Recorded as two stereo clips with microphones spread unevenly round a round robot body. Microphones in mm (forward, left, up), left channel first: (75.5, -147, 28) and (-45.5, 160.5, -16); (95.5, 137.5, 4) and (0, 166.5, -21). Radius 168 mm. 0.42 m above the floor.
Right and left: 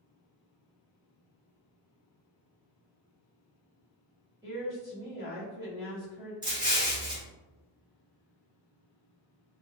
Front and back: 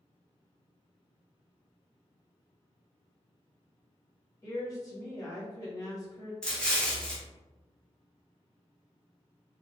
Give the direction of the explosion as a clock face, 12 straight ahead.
9 o'clock.